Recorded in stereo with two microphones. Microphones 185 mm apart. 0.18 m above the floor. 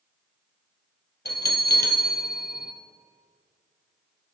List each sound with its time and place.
1.2 s a bell: 60° left (ahead or behind), 0.8 m